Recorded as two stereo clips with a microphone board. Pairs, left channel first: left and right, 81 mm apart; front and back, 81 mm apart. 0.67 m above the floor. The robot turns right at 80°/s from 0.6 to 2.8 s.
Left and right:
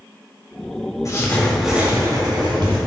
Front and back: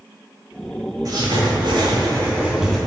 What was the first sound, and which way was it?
Writing, 135° left.